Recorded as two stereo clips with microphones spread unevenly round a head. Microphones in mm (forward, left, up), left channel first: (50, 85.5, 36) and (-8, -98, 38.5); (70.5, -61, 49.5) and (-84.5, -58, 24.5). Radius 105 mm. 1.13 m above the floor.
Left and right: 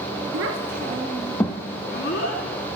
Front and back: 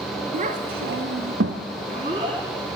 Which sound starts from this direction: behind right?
A child speaking, at 0.3 s.